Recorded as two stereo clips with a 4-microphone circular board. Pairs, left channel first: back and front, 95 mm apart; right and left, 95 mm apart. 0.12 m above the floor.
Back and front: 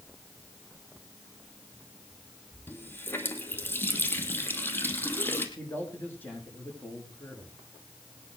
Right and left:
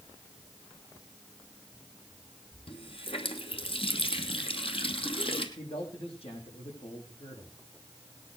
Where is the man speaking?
110° right, 7 m.